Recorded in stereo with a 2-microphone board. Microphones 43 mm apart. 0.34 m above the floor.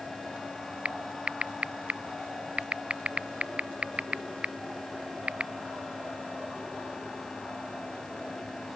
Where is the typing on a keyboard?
30° right (ahead or behind).